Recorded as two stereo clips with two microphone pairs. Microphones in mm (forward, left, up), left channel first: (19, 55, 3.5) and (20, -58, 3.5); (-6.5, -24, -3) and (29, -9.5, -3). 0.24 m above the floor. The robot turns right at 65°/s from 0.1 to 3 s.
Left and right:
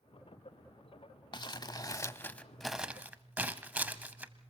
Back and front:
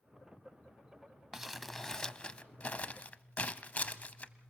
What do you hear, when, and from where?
1.3 s crumpling: 95° left, 0.8 m; by 4.5 s 160° right, 0.8 m